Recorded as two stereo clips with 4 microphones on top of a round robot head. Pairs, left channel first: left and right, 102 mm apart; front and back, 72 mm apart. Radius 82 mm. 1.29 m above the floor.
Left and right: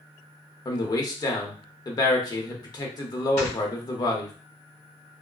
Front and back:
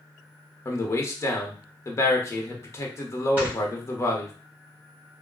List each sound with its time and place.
0.7 s a man speaking: 45° left, 1.0 m
3.4 s snoring: 120° left, 1.5 m